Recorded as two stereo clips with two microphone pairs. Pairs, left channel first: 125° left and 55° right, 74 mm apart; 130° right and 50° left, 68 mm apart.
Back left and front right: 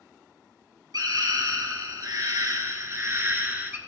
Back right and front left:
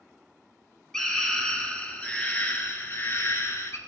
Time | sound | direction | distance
0.9 | a scream | 50° right | 3 m